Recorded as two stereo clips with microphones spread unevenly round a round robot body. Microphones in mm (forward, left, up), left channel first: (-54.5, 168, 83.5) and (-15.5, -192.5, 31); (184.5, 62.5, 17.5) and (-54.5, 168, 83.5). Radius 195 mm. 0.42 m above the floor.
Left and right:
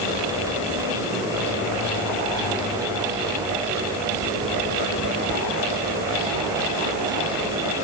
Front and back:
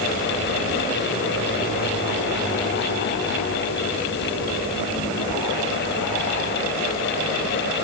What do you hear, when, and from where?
Only background noise.